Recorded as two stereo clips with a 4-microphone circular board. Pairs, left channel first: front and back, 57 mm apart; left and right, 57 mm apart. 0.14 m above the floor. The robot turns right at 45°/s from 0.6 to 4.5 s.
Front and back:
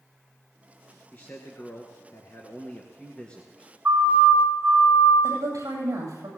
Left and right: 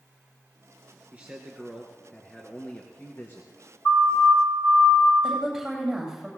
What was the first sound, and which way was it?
A man speaking, 40° right.